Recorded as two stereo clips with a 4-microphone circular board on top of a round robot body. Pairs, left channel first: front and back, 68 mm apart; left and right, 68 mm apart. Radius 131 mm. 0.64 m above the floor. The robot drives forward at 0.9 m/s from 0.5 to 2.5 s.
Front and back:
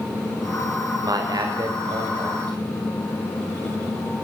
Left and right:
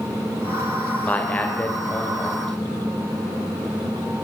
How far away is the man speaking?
About 2.5 m.